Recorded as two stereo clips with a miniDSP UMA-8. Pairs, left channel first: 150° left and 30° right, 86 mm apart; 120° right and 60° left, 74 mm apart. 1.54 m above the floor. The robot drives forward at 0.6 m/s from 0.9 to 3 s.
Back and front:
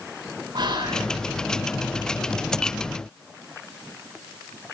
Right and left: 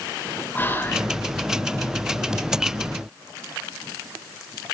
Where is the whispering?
60° right, 6.5 m.